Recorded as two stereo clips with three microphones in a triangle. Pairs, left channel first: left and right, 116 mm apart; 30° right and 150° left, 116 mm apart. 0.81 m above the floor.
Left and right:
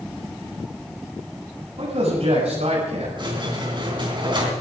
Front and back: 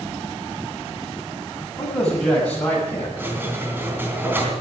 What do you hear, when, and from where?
1.8 s a man speaking: 115° right, 6 m; by 3.1 s 105° right, 5.5 m
3.2 s a squeak: 135° right, 3 m